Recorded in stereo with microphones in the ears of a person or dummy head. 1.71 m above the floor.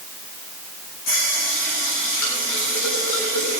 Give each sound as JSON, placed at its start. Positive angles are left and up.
{"t": 1.1, "sound": "a running tap", "side_deg": 80, "distance_m": 7.5}